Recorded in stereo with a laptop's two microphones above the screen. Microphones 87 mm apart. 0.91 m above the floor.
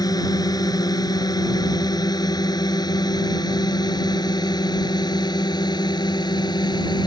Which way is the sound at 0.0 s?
45° left (ahead or behind).